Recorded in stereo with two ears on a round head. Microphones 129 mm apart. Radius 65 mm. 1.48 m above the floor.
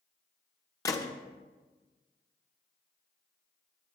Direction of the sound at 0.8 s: 25° left (ahead or behind).